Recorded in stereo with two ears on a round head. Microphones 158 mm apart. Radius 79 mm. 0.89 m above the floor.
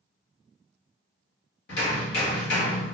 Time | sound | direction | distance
1.7 | hammering | 65° left (ahead or behind) | 1.3 m